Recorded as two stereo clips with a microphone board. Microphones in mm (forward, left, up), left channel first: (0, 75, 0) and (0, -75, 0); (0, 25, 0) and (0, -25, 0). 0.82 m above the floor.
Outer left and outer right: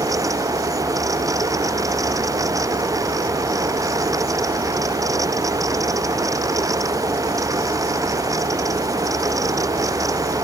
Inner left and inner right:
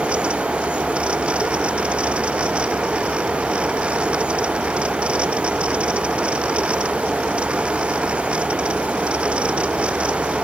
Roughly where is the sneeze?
No sneeze in this recording.